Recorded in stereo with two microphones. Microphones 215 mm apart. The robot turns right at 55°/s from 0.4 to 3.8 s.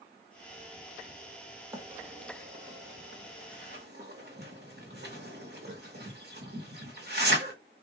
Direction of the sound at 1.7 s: 10° right (ahead or behind).